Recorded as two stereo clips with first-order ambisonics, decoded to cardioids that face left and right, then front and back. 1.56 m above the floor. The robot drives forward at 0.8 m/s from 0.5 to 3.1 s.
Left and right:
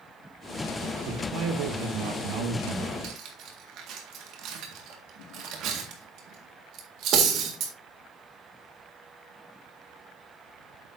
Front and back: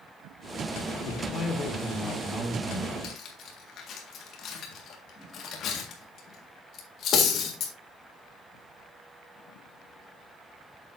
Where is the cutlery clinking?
50° right, 1.7 m; by 7.7 s 55° right, 1.7 m.